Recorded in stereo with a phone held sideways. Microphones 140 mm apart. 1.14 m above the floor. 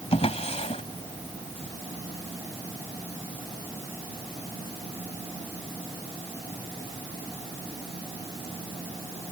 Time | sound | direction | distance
0.1 | a drawer | 50° left (ahead or behind) | ?